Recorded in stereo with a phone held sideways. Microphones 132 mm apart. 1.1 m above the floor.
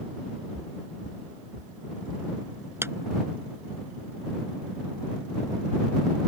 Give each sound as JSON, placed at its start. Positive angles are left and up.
{"t": 0.5, "sound": "footsteps", "side_deg": -65}
{"t": 2.8, "sound": "a clap", "side_deg": -20}